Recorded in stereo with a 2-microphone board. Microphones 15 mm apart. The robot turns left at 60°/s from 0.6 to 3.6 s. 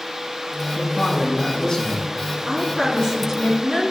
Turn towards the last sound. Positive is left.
turn(degrees=-135)